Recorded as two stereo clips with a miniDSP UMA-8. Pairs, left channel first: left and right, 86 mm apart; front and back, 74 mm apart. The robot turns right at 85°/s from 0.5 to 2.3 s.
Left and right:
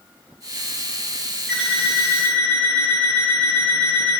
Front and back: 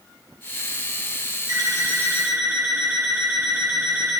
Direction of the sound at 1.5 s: 165° left.